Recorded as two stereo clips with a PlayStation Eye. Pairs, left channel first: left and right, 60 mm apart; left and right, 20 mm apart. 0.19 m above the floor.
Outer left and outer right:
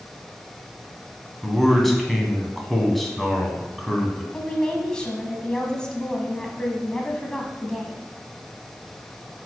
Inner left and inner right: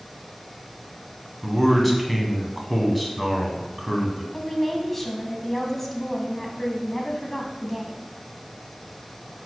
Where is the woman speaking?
15° left (ahead or behind), 1.2 m.